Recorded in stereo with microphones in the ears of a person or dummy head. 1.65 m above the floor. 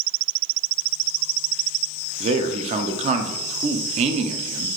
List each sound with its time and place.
2.2 s a man speaking: 35° right (ahead or behind), 0.6 m